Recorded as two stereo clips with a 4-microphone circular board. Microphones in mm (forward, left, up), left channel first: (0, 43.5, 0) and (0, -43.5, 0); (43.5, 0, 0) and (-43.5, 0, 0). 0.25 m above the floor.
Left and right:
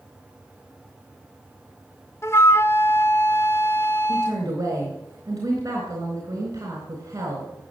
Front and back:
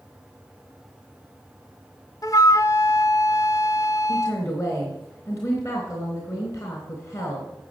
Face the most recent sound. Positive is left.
turn(degrees=-45)